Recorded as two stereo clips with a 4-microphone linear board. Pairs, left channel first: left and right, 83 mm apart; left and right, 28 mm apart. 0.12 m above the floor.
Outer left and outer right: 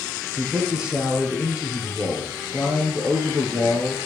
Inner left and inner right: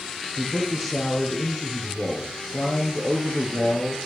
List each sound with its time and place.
0.4 s a man speaking: 10° right (ahead or behind), 3 m